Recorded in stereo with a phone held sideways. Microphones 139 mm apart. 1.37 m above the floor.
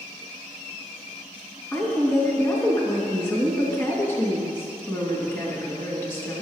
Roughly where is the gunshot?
I don't hear a gunshot.